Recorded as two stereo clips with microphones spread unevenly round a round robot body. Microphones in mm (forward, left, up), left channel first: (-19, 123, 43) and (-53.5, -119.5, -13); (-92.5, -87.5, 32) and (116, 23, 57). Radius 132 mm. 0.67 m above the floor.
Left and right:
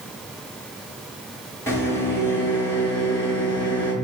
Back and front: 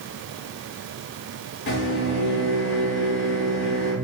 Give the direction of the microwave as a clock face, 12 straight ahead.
6 o'clock.